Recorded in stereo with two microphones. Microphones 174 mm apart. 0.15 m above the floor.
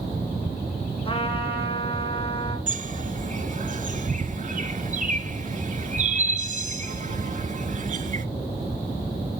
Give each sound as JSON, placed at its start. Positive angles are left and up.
{"t": 1.1, "sound": "a trumpet", "side_deg": 30, "distance_m": 1.6}
{"t": 2.7, "sound": "a bird", "side_deg": -45, "distance_m": 0.5}